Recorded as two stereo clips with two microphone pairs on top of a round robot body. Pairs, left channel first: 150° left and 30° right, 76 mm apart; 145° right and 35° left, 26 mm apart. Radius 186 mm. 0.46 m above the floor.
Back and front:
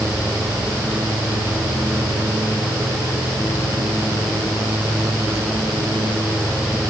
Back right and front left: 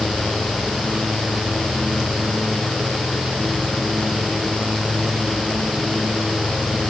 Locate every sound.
Only background noise.